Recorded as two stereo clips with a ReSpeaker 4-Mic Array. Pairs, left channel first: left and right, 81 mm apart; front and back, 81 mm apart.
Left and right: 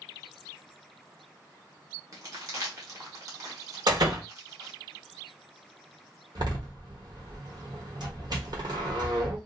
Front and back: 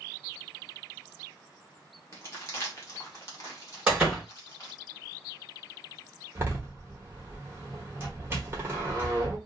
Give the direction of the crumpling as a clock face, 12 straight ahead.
2 o'clock.